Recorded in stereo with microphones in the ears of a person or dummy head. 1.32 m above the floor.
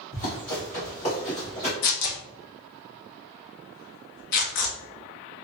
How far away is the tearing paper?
About 0.6 m.